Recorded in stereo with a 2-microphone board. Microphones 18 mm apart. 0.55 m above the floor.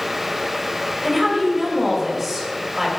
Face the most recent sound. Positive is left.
turn(degrees=-10)  # may be behind; listen again after turning